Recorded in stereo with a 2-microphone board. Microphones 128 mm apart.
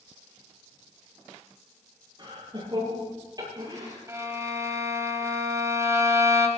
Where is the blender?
I don't hear a blender.